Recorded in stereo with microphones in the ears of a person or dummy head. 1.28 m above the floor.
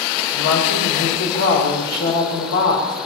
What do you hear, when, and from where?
0.3 s a woman speaking: 75° left (ahead or behind), 5.5 m